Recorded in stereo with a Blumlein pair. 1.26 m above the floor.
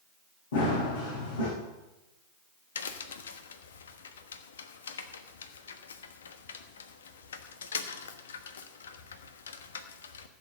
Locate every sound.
0.5 s running footsteps: 60° left, 5.5 m
2.8 s a crack: 65° left, 1.2 m